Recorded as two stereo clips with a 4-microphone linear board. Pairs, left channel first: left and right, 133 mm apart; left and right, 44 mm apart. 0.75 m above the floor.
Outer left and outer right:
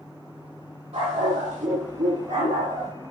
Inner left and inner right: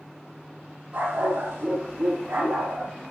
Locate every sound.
0.9 s a dog barking: 50° right (ahead or behind), 5.5 m; by 2.9 s 70° right (ahead or behind), 6 m